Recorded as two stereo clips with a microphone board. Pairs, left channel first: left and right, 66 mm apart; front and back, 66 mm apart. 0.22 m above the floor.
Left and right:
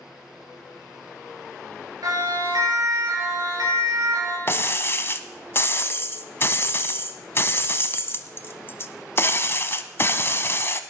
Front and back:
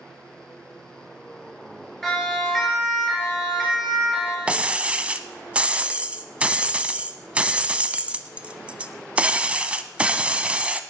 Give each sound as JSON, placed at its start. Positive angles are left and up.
{"t": 2.0, "sound": "a siren", "azimuth_deg": -85, "distance_m": 5.5}
{"t": 4.5, "sound": "breaking glass", "azimuth_deg": 120, "distance_m": 0.8}